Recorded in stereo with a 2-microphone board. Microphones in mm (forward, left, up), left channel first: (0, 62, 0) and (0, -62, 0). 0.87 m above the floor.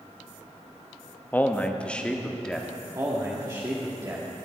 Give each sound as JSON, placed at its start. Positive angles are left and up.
{"t": 1.3, "sound": "a man speaking", "side_deg": 15, "distance_m": 0.8}
{"t": 3.0, "sound": "a man speaking", "side_deg": -30, "distance_m": 1.6}